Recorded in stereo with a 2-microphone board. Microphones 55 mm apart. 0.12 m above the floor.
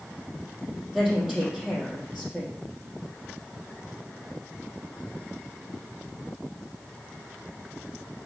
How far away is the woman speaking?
About 3.5 m.